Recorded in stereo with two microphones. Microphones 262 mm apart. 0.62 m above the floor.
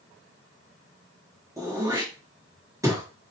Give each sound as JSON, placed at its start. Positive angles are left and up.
{"t": 1.6, "sound": "throat clearing", "side_deg": -10, "distance_m": 1.1}